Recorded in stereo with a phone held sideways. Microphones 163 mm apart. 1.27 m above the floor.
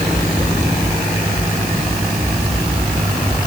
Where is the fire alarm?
No fire alarm in this recording.